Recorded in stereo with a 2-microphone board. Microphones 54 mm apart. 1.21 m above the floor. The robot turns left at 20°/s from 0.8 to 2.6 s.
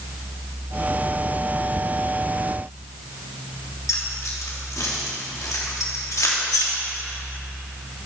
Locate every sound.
3.9 s keys jangling: 80° left, 1.6 m